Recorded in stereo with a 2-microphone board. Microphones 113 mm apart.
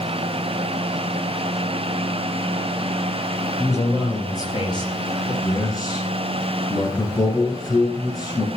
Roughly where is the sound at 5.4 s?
Left.